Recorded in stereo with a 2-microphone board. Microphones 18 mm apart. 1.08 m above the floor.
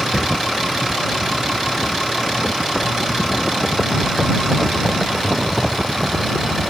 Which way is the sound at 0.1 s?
15° left (ahead or behind).